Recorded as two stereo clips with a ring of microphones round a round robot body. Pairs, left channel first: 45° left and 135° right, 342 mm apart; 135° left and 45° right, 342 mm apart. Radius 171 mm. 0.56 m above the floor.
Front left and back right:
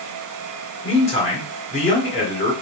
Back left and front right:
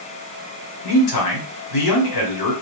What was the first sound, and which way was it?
A man speaking, 115° left.